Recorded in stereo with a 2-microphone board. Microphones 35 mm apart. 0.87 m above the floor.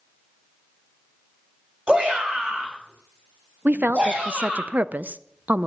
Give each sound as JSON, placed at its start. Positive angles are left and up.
{"t": 1.9, "sound": "a shout", "side_deg": -30, "distance_m": 4.0}
{"t": 3.6, "sound": "a woman speaking", "side_deg": -55, "distance_m": 0.5}